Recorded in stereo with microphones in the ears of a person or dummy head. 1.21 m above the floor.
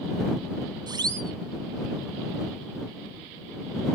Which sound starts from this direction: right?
A siren, at 0.9 s.